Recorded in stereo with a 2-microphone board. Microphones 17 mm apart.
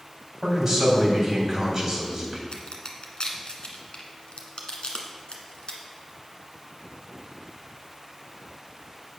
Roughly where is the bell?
No bell in this recording.